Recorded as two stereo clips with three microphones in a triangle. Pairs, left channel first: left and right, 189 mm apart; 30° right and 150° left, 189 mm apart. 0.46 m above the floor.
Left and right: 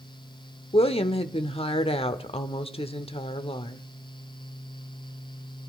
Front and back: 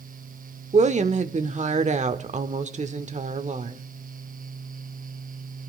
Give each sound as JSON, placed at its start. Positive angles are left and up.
{"t": 0.7, "sound": "a woman speaking", "azimuth_deg": 130, "distance_m": 0.9}